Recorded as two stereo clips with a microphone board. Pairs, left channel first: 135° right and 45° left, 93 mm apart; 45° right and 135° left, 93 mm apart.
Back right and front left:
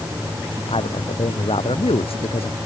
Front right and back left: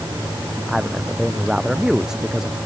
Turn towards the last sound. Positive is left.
turn(degrees=-140)